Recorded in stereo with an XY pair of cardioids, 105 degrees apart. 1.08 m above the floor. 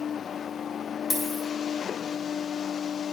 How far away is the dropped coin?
About 4 m.